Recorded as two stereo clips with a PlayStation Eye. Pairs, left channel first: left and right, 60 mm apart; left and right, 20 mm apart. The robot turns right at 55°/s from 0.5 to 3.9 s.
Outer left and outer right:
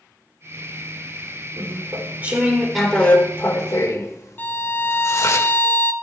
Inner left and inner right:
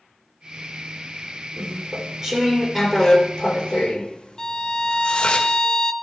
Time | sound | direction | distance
1.6 | chewing | 65° right | 2 m
4.4 | a violin | 35° left (ahead or behind) | 0.7 m